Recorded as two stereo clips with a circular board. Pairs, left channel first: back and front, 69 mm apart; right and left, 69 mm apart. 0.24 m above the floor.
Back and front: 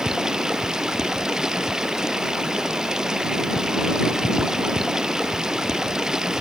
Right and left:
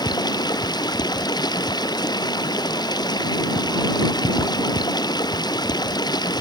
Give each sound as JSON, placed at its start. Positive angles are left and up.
{"t": 0.0, "sound": "running water", "azimuth_deg": -80}